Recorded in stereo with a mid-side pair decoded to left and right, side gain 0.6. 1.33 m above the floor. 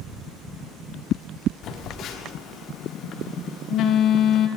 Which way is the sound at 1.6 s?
55° left.